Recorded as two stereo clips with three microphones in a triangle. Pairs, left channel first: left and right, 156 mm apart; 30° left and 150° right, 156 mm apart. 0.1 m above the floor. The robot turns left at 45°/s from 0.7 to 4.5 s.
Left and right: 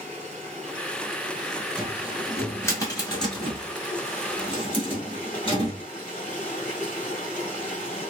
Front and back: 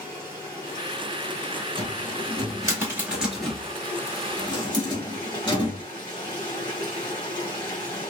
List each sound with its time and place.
0.0 s running water: 110° right, 1.9 m; by 8.1 s 80° left, 1.9 m
1.8 s a cupboard door: 170° right, 1.5 m; by 5.8 s 70° left, 1.5 m